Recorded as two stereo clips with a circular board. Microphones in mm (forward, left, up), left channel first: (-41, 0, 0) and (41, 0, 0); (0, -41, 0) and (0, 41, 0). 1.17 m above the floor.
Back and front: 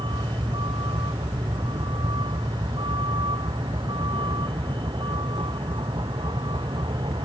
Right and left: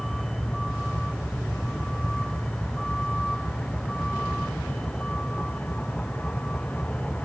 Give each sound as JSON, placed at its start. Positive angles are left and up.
{"t": 0.0, "sound": "a vehicle", "azimuth_deg": -5}